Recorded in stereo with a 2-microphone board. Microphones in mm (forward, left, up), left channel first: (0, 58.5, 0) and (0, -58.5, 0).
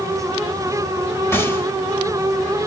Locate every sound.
1.3 s a gunshot: 20° left (ahead or behind), 1.2 m